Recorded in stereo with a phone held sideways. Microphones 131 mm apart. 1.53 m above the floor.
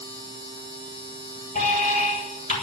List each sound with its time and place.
0.0 s a machine running: 40° left (ahead or behind), 7.5 m
1.6 s an alarm: 85° left, 6.5 m